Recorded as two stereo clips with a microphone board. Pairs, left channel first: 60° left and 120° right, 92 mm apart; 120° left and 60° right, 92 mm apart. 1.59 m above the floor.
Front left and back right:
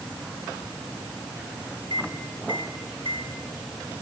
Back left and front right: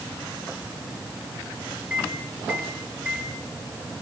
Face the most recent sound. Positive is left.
turn(degrees=-135)